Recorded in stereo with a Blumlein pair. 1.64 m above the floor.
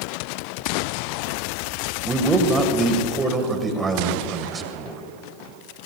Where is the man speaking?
15° right, 1.9 m.